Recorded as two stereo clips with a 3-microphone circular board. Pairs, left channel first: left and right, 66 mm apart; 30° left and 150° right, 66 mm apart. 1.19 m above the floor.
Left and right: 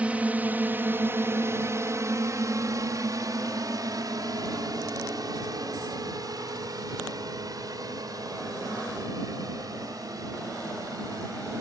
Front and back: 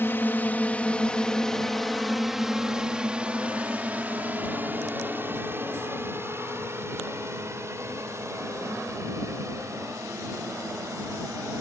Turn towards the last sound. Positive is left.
turn(degrees=-115)